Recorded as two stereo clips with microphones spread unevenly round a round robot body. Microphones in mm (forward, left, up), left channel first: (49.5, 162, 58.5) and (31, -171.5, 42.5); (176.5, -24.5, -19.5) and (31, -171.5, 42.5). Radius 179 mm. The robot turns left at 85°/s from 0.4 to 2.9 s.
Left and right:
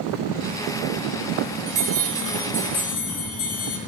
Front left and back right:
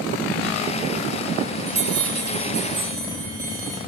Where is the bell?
115° right, 2.5 m; by 3.8 s 140° left, 2.5 m.